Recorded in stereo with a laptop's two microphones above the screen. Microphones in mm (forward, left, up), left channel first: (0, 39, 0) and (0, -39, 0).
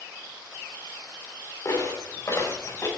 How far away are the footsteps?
About 6 m.